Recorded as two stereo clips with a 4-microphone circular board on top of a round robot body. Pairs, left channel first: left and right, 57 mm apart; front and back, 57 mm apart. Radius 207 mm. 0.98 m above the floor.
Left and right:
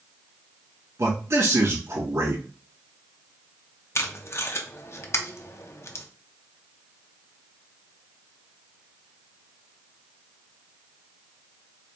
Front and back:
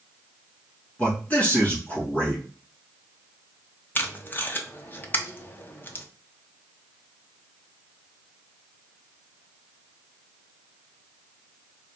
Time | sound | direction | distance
1.0 | a man speaking | 65° right | 2 m
4.0 | tape being pulled | 55° left | 0.8 m